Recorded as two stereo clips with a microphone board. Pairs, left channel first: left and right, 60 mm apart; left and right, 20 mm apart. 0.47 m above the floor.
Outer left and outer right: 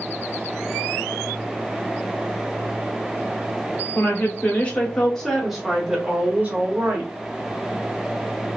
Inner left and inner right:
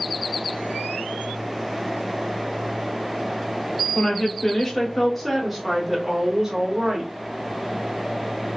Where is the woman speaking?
35° left (ahead or behind), 1.2 m; by 7.1 s 35° right (ahead or behind), 1.3 m.